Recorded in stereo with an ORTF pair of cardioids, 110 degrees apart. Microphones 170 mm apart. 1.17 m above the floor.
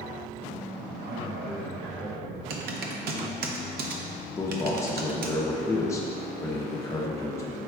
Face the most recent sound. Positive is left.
turn(degrees=15)